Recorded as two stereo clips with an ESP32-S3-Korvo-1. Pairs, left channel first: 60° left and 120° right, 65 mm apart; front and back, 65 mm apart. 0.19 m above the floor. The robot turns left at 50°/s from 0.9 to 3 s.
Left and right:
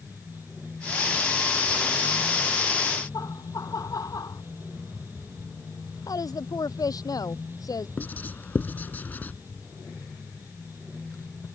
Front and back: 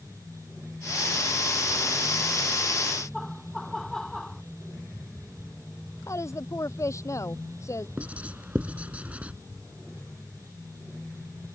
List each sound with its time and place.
3.1 s laughter: 85° left
6.1 s a woman speaking: 40° left
8.0 s writing: 115° left